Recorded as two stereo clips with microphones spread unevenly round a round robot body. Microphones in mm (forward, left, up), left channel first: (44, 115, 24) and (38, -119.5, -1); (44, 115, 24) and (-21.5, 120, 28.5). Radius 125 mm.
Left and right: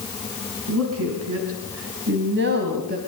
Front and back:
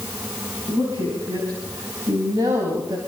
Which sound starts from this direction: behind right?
A woman speaking, at 0.7 s.